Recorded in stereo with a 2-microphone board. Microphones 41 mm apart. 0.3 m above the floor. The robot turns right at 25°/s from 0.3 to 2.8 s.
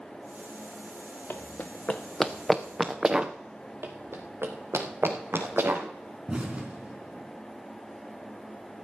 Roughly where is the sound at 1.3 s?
Left.